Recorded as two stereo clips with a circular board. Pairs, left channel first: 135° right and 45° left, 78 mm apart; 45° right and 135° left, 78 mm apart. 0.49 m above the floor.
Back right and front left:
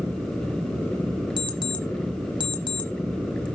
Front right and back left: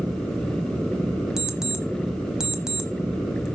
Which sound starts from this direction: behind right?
An alarm clock, at 1.4 s.